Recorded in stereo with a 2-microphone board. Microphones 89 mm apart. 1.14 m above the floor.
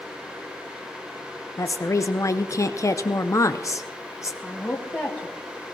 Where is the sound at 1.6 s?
35° left (ahead or behind), 0.5 m.